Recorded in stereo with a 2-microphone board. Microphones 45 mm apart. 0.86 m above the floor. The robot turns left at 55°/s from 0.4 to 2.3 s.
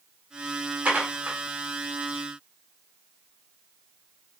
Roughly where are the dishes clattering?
Right.